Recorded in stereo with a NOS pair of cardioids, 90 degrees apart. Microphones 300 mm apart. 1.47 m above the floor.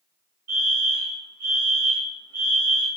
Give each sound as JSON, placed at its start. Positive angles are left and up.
{"t": 0.5, "sound": "a fire alarm", "azimuth_deg": -65, "distance_m": 3.5}